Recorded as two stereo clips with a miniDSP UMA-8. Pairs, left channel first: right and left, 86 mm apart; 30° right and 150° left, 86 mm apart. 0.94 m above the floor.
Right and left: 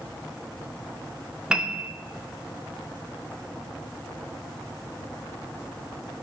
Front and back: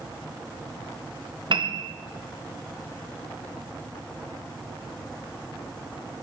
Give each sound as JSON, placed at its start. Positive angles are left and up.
{"t": 1.5, "sound": "a piano", "azimuth_deg": 170, "distance_m": 0.7}